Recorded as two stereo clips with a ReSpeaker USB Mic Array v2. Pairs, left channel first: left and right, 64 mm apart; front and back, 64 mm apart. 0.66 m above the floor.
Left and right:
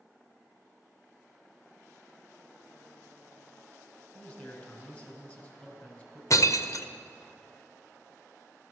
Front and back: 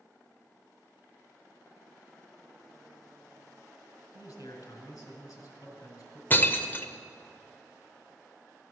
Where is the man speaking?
30° left, 3.5 m.